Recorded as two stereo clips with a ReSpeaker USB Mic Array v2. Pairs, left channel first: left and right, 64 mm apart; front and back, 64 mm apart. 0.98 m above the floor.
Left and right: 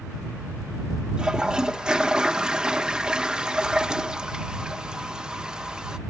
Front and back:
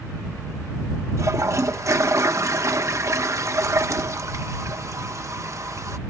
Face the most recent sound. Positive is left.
turn(degrees=-165)